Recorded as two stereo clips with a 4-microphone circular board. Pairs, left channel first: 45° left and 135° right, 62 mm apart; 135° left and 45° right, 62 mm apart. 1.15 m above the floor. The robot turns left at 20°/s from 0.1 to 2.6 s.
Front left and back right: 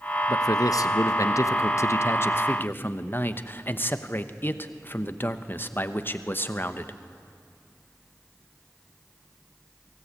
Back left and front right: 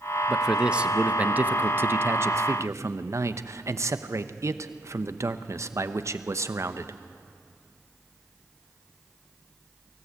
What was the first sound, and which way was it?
A man speaking, 35° left.